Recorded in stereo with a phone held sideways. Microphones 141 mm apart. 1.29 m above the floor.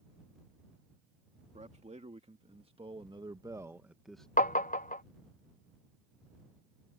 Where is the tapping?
65° left (ahead or behind).